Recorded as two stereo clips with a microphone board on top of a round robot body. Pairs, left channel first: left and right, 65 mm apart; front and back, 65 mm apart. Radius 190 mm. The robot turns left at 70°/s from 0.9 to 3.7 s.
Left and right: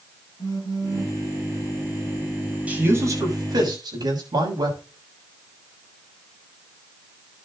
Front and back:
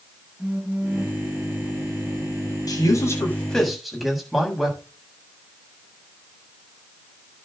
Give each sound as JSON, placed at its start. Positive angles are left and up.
{"t": 0.4, "sound": "a phone buzzing", "azimuth_deg": 110, "distance_m": 7.0}
{"t": 2.7, "sound": "a man speaking", "azimuth_deg": -20, "distance_m": 7.5}